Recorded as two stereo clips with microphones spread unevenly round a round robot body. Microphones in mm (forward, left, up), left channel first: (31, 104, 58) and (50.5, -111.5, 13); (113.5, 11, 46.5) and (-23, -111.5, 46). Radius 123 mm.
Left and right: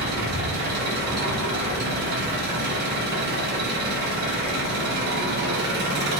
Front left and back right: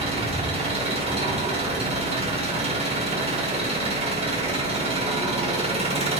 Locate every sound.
0.0 s an engine running: 90° right, 1.6 m